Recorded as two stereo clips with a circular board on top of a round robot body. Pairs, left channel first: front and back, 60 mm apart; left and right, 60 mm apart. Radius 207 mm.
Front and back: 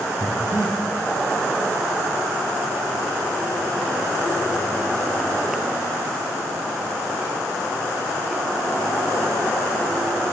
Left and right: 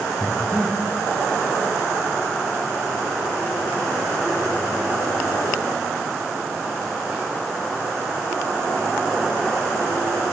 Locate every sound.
0.2 s breathing: 140° left, 2 m